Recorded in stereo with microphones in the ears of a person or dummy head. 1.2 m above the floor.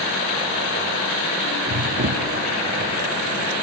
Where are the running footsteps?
45° right (ahead or behind).